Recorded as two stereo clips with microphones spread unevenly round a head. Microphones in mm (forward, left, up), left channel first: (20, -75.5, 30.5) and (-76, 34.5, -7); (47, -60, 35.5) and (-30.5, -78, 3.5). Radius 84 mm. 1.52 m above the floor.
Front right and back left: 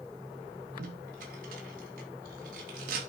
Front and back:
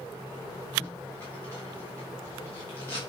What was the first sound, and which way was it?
Tape being pulled, 90° left.